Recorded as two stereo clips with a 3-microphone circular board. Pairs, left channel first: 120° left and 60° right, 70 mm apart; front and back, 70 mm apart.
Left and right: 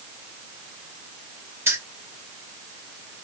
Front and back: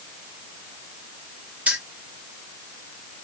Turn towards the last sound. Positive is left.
turn(degrees=-110)